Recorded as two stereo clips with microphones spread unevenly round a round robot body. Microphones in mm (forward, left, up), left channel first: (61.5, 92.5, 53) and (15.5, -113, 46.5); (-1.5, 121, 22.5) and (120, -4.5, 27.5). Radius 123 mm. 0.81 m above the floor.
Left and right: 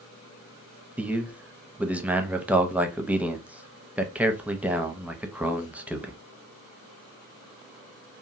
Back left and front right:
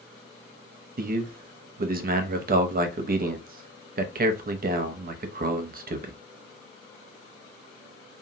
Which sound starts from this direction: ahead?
A man speaking, at 1.0 s.